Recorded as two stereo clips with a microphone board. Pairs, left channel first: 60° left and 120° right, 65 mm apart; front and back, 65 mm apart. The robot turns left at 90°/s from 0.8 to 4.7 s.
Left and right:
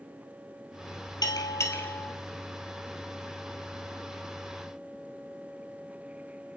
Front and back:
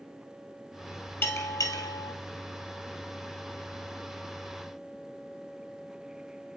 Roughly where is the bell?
Ahead left.